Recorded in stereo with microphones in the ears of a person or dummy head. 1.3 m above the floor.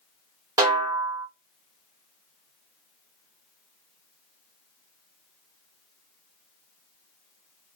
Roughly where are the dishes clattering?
No dishes clattering in this recording.